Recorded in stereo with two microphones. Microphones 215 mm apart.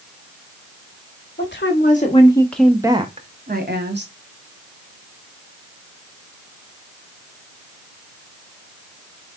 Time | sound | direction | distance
1.4 | a woman speaking | 55° left (ahead or behind) | 1.0 m